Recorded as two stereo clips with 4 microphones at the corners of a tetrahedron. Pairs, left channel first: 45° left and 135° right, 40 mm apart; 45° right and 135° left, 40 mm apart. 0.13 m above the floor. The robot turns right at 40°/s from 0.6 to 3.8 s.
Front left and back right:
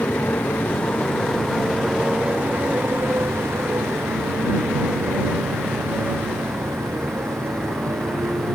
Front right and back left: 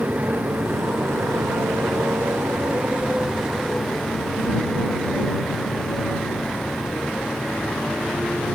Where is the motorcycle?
90° left; by 8.6 s 125° right.